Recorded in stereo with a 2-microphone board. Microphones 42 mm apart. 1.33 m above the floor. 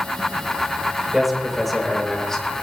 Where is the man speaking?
5° right (ahead or behind), 6 m; by 2.5 s 15° left (ahead or behind), 4.5 m.